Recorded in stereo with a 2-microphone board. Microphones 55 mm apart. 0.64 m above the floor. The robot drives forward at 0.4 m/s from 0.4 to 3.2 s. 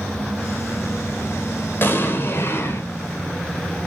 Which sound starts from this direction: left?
An explosion, at 1.8 s.